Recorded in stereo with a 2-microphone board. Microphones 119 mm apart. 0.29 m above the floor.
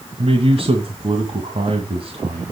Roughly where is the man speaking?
Right.